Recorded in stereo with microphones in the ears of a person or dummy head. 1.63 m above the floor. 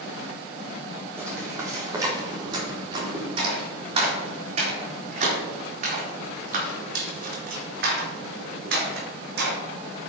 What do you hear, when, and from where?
1.2 s footsteps: 15° right (ahead or behind), 4.5 m; by 9.6 s 70° right (ahead or behind), 5 m